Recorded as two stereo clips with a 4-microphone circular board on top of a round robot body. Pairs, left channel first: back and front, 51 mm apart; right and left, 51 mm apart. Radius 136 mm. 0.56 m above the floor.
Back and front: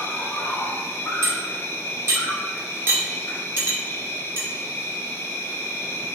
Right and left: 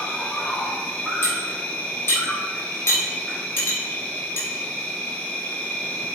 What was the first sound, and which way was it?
An insect, 155° right.